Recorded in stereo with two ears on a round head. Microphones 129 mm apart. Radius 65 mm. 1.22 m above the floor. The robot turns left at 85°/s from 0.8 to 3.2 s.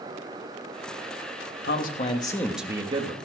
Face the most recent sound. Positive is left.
turn(degrees=-55)